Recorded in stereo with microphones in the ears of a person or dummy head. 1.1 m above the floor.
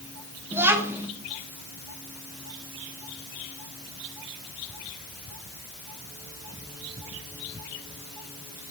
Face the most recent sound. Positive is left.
turn(degrees=-10)  # may be behind; listen again after turning